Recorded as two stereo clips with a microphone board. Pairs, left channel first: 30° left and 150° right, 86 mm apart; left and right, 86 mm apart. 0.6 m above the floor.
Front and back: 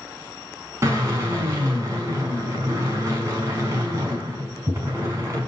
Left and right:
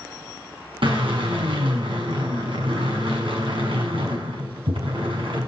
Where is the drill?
95° right, 5.5 m.